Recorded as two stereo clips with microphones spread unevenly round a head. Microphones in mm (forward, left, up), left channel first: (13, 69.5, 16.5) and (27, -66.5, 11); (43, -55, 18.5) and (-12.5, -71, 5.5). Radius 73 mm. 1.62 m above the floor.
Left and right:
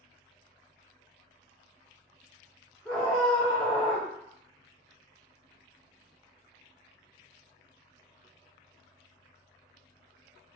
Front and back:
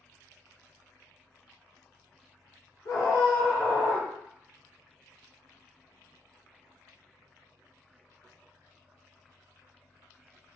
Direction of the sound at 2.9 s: 10° left.